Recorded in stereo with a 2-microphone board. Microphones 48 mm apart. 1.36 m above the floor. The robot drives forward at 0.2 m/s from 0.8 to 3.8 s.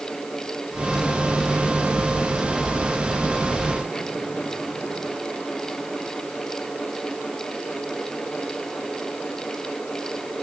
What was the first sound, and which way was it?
Only background noise.